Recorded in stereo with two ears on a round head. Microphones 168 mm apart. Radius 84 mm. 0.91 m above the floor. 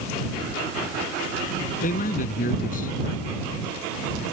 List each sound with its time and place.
1.8 s a man speaking: 45° left (ahead or behind)